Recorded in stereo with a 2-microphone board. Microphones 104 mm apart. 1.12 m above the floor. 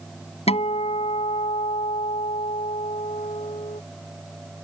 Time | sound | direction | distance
0.5 | a guitar | 85° left | ?